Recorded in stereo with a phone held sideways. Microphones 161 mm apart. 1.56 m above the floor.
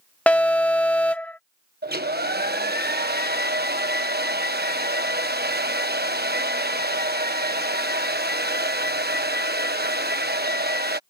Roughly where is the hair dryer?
Right.